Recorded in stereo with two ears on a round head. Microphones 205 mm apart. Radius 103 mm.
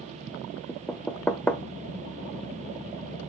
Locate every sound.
0.7 s knocking: 5° left (ahead or behind), 0.8 m